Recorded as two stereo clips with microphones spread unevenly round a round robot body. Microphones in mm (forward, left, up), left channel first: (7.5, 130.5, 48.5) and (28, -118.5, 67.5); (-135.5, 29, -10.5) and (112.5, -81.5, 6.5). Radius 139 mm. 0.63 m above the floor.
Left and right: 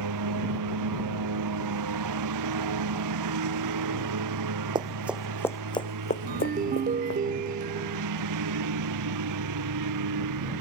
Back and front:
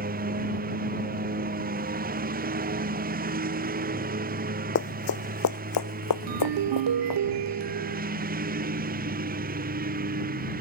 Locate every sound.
0.0 s a lawn mower: 80° right
4.8 s running footsteps: 155° right; by 7.2 s 145° left
6.3 s a ringtone: 25° right